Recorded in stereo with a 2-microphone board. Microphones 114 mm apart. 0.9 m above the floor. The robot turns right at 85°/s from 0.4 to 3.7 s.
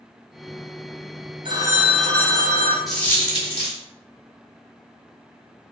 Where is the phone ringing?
45° right, 0.6 m; by 2.8 s 65° left, 0.6 m.